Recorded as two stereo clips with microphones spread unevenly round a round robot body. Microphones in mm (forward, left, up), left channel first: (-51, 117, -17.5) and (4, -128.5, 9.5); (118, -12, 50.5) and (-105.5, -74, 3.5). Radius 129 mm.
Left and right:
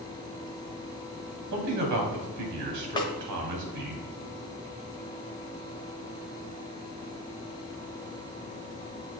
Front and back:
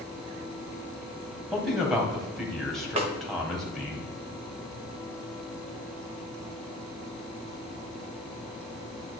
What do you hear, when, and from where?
1.5 s a man speaking: 80° right, 2.5 m
3.0 s a snare drum: 160° left, 1.2 m